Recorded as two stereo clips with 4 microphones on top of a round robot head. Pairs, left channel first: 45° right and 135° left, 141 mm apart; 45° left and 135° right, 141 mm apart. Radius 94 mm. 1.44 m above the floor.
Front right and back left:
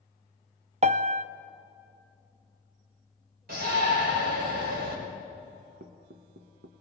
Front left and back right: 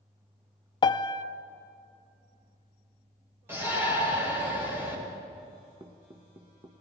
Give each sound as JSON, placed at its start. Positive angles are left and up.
{"t": 0.8, "sound": "a piano", "azimuth_deg": 100, "distance_m": 0.7}
{"t": 3.5, "sound": "a shout", "azimuth_deg": 150, "distance_m": 6.0}
{"t": 5.8, "sound": "knocking", "azimuth_deg": 160, "distance_m": 1.1}